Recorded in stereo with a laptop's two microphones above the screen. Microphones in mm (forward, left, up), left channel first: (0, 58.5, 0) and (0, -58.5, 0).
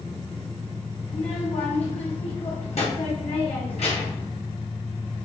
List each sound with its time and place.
1.1 s a child speaking: 65° left (ahead or behind), 0.9 m